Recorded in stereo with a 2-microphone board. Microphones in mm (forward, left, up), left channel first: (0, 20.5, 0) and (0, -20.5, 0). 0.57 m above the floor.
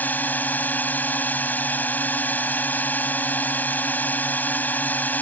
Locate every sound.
0.0 s a drone: 45° left (ahead or behind)